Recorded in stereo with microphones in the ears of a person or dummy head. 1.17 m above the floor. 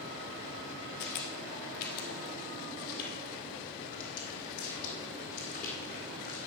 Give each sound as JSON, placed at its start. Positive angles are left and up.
{"t": 1.0, "sound": "footsteps", "side_deg": 50, "distance_m": 1.7}